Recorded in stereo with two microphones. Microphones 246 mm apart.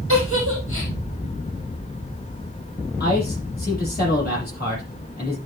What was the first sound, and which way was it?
A giggle, 55° left (ahead or behind).